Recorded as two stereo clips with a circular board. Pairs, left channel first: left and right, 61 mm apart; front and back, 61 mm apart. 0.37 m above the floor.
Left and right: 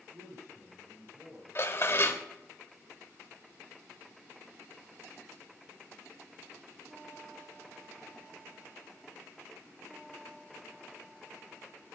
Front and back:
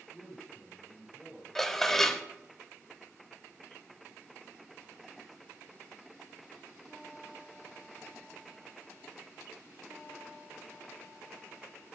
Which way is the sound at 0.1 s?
110° right.